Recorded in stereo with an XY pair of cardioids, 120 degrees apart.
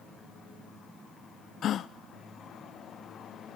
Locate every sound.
1.6 s a gasp: 55° left, 0.8 m